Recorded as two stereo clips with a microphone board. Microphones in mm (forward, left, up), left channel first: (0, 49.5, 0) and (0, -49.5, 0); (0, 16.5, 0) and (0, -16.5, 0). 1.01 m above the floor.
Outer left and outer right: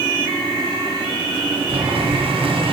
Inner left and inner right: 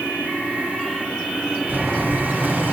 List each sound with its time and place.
1.7 s boiling: 70° right (ahead or behind), 2 m